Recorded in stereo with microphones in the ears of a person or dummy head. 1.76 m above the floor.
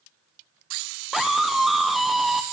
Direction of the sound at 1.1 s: Centre (ahead or behind).